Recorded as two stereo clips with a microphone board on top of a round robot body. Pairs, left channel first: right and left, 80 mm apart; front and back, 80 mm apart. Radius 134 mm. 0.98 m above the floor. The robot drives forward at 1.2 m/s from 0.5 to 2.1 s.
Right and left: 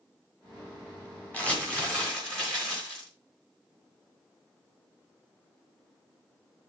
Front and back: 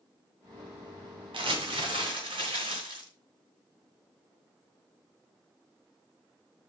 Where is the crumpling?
165° right, 2 m; by 3.1 s 170° right, 3 m.